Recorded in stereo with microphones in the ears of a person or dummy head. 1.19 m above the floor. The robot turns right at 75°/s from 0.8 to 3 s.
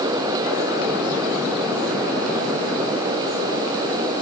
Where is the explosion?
I don't hear an explosion.